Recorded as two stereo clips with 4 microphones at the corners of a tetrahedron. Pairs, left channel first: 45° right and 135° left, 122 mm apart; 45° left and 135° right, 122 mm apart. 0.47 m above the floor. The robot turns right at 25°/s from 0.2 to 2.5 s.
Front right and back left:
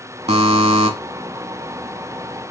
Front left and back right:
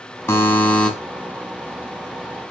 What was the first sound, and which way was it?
A buzzer, 110° left.